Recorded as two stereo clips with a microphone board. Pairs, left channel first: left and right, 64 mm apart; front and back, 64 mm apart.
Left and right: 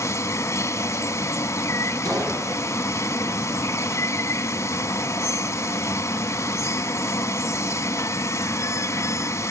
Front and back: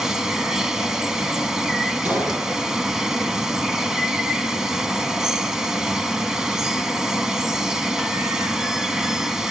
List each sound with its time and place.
0.0 s running water: 100° left, 1.1 m
2.0 s a gunshot: 115° right, 8 m